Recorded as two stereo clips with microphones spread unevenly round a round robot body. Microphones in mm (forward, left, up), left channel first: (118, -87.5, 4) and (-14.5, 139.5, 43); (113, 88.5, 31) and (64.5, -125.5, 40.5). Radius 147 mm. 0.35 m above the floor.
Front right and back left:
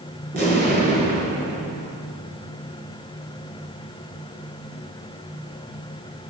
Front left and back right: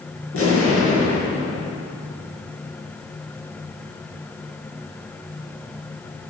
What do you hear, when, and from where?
0.3 s an explosion: 65° left, 4.5 m